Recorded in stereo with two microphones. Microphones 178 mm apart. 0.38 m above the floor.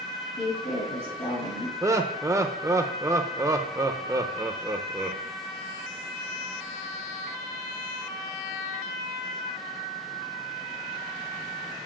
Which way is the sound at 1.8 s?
15° right (ahead or behind).